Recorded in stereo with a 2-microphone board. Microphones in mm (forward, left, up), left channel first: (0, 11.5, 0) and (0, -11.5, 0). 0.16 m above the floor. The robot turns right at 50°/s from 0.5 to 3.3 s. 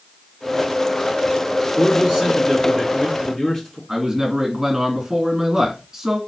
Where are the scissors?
No scissors in this recording.